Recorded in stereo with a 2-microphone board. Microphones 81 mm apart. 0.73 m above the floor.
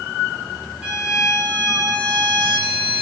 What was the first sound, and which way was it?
A violin, 15° right (ahead or behind).